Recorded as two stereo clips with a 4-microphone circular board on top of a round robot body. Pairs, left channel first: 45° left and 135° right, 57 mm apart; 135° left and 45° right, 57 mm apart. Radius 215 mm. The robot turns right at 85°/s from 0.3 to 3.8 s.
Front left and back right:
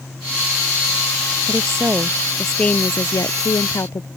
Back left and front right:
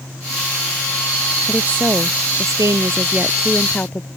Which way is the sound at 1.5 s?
120° right.